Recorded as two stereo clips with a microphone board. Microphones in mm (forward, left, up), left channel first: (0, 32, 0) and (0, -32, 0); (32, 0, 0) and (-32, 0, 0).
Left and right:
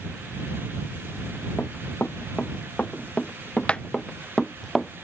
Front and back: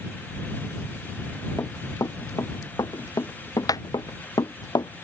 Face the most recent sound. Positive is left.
turn(degrees=0)